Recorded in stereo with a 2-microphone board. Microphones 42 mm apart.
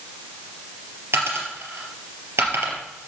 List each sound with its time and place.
1.1 s a dropped coin: 70° right (ahead or behind), 3 m